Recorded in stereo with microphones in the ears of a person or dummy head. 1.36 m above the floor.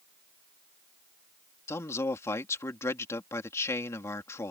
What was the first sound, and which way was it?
A man speaking, 20° left (ahead or behind).